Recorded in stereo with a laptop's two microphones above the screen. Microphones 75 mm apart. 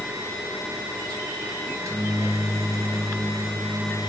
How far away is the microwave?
About 0.6 m.